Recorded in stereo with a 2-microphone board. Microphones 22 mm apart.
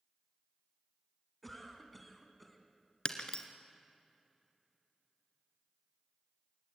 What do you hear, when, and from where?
1.4 s a cough: 5° left (ahead or behind), 3.5 m
3.0 s breaking glass: 45° left (ahead or behind), 1.7 m